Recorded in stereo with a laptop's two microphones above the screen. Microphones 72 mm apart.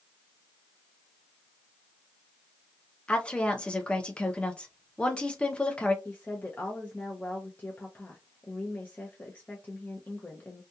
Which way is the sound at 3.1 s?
15° left (ahead or behind).